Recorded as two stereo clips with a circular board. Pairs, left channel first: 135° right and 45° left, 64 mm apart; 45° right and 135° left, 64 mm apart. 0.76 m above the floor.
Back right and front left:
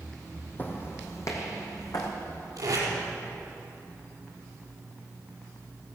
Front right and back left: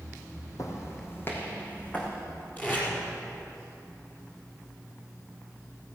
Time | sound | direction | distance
0.6 | footsteps | 75° right | 1.9 m
2.6 | tape being pulled | 15° left | 4.5 m